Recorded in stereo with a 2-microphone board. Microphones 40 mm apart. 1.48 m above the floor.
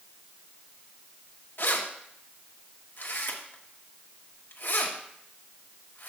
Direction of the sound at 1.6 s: 60° left (ahead or behind).